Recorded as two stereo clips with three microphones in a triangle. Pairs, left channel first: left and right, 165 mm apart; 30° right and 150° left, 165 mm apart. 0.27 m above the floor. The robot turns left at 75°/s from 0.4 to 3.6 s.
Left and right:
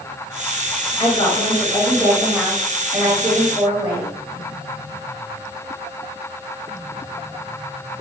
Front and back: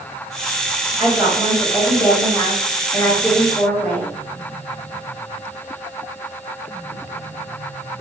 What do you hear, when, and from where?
1.0 s a woman speaking: 95° left, 0.9 m; by 4.1 s 100° right, 0.9 m